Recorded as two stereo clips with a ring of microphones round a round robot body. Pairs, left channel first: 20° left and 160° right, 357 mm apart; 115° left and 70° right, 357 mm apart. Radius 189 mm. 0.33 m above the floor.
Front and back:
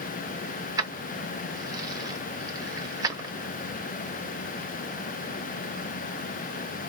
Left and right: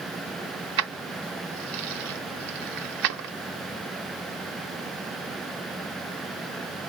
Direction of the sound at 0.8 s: 80° right.